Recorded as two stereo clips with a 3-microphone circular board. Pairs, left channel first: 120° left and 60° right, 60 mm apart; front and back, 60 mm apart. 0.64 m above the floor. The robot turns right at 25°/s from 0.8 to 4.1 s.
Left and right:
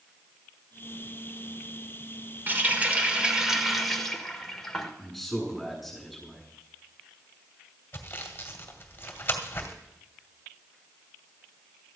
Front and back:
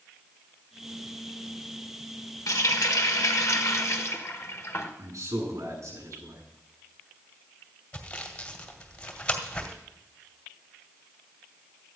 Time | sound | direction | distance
2.5 | a running tap | 5° right | 1.5 m
5.0 | a man speaking | 150° right | 7 m
7.9 | sawing | 65° left | 2.0 m